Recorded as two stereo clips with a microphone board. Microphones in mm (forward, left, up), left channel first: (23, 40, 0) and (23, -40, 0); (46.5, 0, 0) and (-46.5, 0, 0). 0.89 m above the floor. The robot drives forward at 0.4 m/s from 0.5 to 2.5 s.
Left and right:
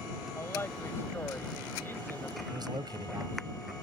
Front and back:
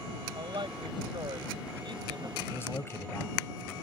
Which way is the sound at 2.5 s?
65° right.